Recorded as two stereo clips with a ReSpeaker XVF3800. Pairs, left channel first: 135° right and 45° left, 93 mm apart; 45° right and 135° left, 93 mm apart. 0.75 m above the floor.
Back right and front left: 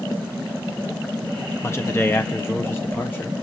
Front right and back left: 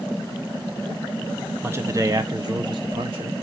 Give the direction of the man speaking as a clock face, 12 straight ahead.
6 o'clock.